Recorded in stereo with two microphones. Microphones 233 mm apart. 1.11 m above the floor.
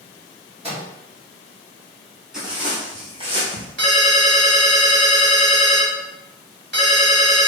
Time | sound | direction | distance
0.6 | a microwave | 25° right (ahead or behind) | 1.3 m
2.3 | footsteps | centre (ahead or behind) | 1.6 m
3.8 | a ringtone | 50° right (ahead or behind) | 1.2 m